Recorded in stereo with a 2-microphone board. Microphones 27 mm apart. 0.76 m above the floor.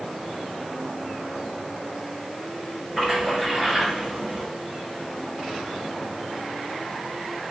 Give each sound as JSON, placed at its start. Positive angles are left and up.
{"t": 3.0, "sound": "a splash", "side_deg": -5, "distance_m": 5.0}